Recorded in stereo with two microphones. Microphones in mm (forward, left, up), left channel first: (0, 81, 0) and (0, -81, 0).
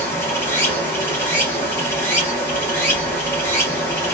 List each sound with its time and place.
0.0 s running water: 15° left (ahead or behind), 1.5 m